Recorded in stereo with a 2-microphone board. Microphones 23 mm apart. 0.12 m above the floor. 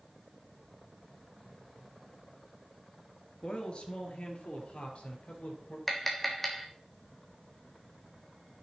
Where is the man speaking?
40° left (ahead or behind), 2.5 m; by 5.8 s 60° left (ahead or behind), 3.5 m.